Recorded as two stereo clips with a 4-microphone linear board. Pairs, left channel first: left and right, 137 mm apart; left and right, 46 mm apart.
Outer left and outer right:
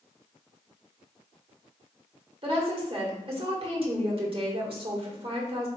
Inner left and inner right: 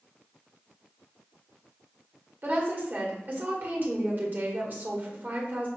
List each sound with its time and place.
2.4 s a woman speaking: 45° right (ahead or behind), 1.3 m